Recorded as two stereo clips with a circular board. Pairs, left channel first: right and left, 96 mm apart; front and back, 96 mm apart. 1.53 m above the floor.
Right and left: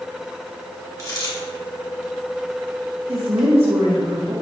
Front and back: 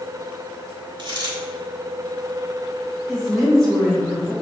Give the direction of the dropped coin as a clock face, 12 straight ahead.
5 o'clock.